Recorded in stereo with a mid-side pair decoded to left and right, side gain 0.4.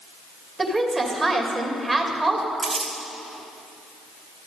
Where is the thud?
I don't hear a thud.